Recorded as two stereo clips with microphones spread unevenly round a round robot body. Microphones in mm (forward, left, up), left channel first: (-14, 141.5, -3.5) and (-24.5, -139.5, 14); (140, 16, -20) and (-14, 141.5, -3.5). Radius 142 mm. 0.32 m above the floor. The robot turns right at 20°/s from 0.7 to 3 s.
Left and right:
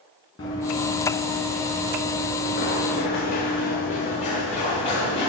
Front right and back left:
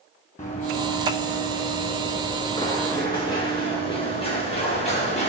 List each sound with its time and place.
0.4 s running footsteps: 15° left, 2.5 m